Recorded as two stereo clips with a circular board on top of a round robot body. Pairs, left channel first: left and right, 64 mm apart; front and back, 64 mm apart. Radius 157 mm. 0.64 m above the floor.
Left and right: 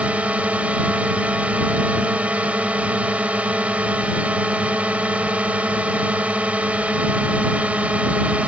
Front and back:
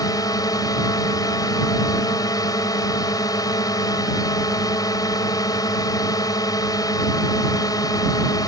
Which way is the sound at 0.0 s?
20° right.